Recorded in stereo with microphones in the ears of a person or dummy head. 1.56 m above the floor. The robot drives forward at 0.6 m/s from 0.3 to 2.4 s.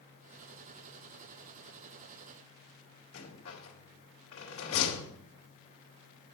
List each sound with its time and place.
3.1 s a rattle: 70° left (ahead or behind), 2.5 m